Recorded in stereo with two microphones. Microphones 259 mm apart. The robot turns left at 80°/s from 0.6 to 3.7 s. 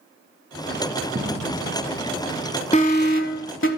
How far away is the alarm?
About 1.0 m.